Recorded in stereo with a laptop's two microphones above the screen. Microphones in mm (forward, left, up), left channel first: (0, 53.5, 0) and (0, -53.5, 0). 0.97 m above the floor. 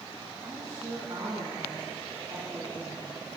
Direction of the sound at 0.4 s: 40° right (ahead or behind).